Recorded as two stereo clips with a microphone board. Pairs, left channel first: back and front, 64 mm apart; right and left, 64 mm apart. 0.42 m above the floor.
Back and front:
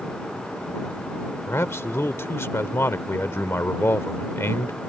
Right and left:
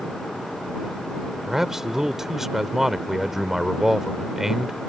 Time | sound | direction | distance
1.5 | a man speaking | 170° left | ?